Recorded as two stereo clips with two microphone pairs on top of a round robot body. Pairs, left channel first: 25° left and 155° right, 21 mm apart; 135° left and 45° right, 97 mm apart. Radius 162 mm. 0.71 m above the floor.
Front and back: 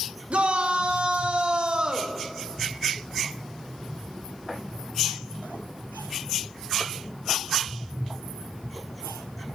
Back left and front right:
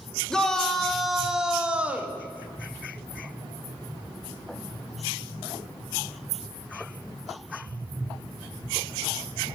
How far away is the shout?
About 2 m.